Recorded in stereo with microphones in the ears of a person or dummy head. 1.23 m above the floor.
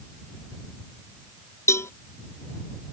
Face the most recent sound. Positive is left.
turn(degrees=15)  # may be behind; listen again after turning